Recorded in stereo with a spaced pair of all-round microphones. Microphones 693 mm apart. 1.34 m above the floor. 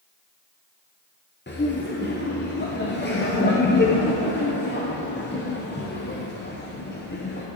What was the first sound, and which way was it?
Laughter, 20° left (ahead or behind).